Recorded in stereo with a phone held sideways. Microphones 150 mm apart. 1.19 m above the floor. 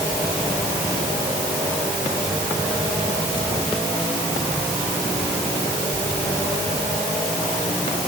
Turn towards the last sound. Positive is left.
No sound to turn to.